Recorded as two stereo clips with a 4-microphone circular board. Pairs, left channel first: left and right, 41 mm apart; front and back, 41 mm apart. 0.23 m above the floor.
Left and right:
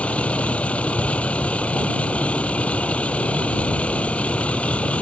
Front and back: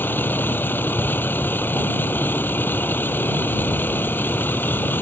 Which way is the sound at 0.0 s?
30° left.